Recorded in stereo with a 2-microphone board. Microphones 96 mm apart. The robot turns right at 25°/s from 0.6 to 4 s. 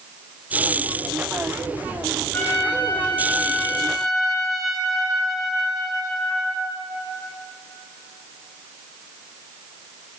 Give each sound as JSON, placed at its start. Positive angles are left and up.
{"t": 2.3, "sound": "a trumpet", "azimuth_deg": 135, "distance_m": 2.0}